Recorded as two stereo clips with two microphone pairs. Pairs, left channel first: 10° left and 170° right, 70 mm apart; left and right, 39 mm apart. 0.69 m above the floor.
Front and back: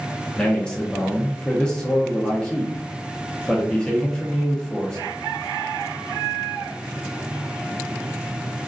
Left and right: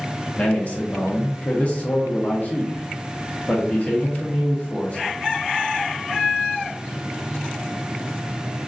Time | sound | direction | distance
0.3 | a man speaking | 75° left | 0.6 m